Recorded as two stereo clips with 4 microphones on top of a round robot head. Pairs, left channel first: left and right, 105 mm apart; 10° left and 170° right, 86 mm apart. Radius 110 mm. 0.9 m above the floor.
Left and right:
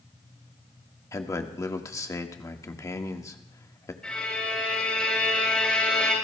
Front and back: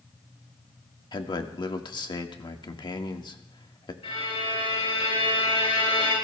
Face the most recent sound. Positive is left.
turn(degrees=10)